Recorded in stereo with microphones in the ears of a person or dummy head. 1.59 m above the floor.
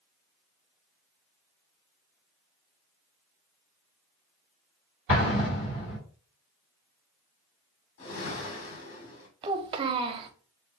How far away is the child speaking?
About 0.7 m.